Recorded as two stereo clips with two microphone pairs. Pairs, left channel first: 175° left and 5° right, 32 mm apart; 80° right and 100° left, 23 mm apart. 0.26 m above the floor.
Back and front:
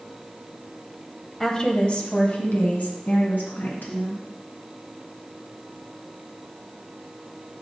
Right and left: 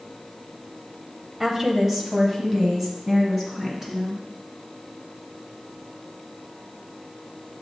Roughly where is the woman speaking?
Behind left.